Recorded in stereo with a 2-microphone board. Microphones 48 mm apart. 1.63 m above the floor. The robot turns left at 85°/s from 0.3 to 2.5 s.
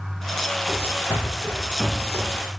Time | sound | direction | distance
0.7 | running footsteps | 60° left (ahead or behind) | 3.5 m